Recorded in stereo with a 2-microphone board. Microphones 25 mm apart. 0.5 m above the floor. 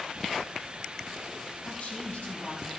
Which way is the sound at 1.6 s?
60° left (ahead or behind).